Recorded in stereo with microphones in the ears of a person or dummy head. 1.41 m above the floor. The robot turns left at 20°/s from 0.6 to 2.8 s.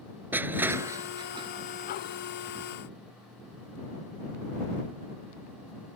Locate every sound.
0.3 s crushing: 10° right (ahead or behind); by 1.5 s 25° right (ahead or behind)